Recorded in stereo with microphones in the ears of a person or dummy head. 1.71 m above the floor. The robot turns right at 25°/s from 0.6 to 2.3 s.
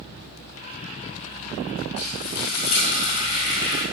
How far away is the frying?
About 4.5 m.